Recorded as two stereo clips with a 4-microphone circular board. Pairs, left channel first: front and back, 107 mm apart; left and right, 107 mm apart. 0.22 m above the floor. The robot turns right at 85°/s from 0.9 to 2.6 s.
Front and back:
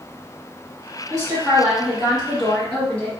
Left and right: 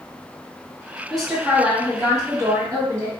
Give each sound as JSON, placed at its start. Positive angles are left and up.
{"t": 1.1, "sound": "a woman speaking", "azimuth_deg": 170, "distance_m": 1.8}